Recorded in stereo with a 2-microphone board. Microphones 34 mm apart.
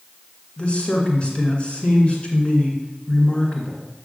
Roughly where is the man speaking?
Left.